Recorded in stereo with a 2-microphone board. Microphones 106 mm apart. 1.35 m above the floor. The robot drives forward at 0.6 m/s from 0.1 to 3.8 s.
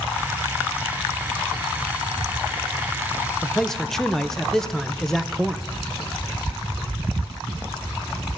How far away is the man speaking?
About 0.5 m.